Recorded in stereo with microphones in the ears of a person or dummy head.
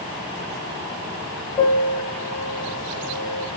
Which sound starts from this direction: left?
A piano, at 1.6 s.